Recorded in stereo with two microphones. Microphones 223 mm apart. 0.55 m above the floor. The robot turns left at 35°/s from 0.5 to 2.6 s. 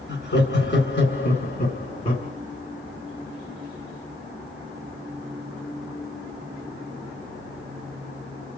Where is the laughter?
105° left, 1.8 m; by 2.3 s 40° left, 1.8 m.